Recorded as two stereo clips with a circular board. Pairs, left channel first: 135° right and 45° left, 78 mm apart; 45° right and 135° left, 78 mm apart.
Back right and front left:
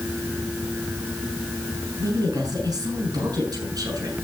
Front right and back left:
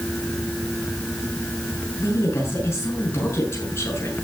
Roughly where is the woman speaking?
Ahead.